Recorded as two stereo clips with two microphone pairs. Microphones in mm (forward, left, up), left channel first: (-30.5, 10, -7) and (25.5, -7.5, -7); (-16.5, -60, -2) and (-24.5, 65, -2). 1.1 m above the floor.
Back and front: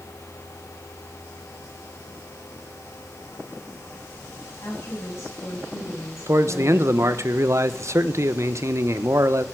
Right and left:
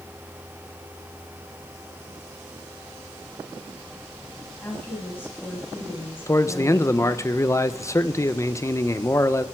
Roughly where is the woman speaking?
Behind.